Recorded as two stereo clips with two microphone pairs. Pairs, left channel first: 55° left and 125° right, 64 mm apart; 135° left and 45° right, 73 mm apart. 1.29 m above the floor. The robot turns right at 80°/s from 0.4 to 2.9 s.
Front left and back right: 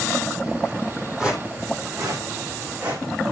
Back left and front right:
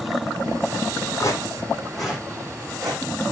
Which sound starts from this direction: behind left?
Footsteps, at 1.2 s.